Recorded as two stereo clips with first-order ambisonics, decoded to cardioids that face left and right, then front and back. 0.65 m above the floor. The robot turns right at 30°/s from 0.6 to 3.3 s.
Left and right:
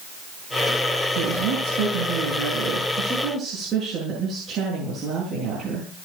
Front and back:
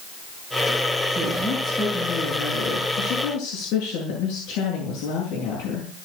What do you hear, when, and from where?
1.1 s a woman speaking: 100° right, 9 m; by 5.9 s 35° right, 9 m